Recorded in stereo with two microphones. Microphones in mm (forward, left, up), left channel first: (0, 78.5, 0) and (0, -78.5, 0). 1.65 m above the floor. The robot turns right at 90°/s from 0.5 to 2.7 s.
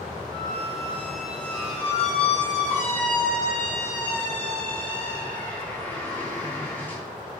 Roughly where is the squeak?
Ahead right.